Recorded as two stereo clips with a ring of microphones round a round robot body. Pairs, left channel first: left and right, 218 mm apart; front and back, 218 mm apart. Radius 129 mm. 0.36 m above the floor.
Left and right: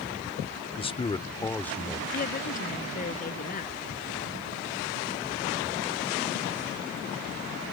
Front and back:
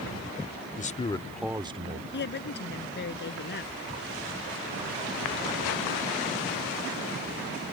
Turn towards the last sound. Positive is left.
turn(degrees=40)